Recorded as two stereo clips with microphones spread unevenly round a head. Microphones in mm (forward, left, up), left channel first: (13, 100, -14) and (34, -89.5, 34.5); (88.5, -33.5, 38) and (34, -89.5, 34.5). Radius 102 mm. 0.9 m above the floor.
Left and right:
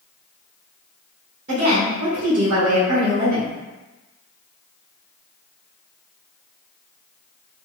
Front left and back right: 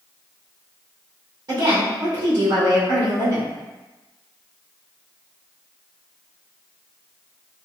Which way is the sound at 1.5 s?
135° right.